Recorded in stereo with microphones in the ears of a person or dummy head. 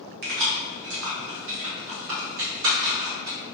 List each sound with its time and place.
0.2 s keys jangling: 45° right (ahead or behind), 0.6 m; by 3.4 s 75° right (ahead or behind), 2.5 m